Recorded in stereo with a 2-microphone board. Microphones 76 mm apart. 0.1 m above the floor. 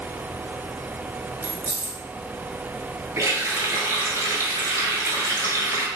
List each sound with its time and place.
1.4 s keys jangling: 30° right (ahead or behind), 0.9 m
3.2 s a running tap: 40° right (ahead or behind), 1.0 m